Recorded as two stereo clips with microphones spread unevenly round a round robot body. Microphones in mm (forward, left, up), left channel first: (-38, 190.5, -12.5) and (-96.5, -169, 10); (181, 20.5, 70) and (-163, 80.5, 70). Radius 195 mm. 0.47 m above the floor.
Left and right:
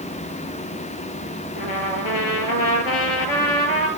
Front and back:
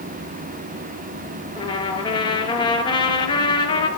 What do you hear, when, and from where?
1.6 s a trumpet: 65° left, 2.0 m